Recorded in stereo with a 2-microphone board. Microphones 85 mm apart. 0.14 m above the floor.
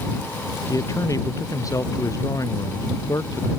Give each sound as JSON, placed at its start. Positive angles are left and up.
{"t": 0.7, "sound": "a man speaking", "side_deg": 40}